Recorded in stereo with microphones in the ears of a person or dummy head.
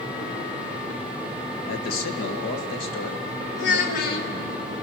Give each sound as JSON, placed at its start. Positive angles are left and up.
{"t": 1.7, "sound": "a man speaking", "side_deg": 60, "distance_m": 0.9}
{"t": 3.6, "sound": "a child speaking", "side_deg": 65, "distance_m": 1.8}